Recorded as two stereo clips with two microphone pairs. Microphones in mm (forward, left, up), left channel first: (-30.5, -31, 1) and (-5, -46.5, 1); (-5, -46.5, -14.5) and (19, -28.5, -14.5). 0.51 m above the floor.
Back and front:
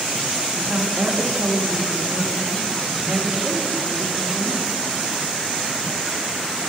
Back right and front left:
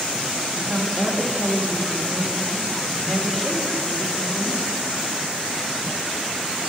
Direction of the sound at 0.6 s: 50° right.